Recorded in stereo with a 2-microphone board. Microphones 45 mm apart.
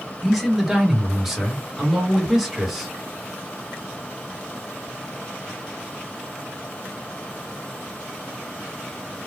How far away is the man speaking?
About 1.3 m.